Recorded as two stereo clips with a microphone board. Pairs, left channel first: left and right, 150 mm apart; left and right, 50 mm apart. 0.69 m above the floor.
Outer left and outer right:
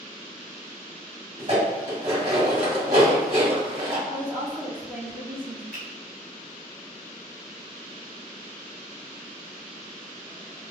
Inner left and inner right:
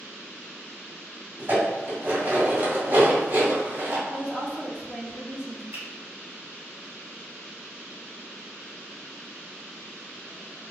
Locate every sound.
1.4 s dishes clattering: 55° right (ahead or behind), 2.0 m
4.1 s a woman speaking: 15° right (ahead or behind), 1.0 m
5.7 s a finger snap: 70° right (ahead or behind), 1.7 m